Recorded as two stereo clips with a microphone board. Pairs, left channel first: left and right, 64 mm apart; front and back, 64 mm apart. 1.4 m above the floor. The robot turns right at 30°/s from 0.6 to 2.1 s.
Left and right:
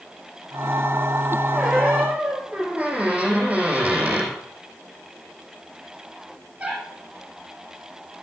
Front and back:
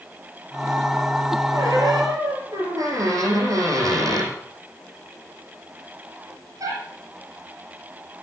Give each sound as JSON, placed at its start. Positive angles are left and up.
{"t": 1.5, "sound": "a squeak", "azimuth_deg": -175, "distance_m": 4.5}